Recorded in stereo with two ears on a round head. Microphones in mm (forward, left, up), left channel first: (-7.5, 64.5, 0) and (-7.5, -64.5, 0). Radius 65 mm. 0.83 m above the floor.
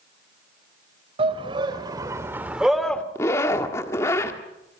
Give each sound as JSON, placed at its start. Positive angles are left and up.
{"t": 1.2, "sound": "a shout", "side_deg": -40, "distance_m": 3.0}
{"t": 3.1, "sound": "a zipper", "side_deg": 20, "distance_m": 1.7}